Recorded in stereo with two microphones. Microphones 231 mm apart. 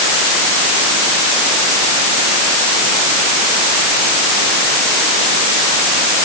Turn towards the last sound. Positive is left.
No sound to turn to.